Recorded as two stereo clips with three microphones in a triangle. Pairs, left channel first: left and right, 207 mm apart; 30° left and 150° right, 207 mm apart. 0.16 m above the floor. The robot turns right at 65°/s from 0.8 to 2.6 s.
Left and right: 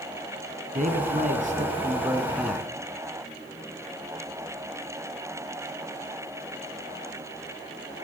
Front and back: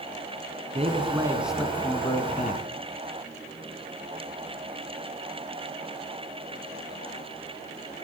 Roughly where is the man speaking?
Right.